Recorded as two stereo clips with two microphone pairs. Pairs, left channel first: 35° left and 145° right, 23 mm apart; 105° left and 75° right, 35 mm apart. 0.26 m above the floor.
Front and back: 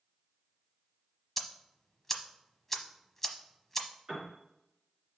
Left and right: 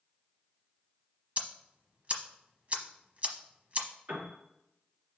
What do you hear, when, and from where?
1.4 s ticking: 40° right, 1.0 m
4.1 s a piano: 85° right, 3.5 m